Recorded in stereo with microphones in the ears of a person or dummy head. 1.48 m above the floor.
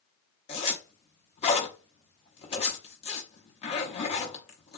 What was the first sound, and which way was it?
A zipper, 30° left (ahead or behind).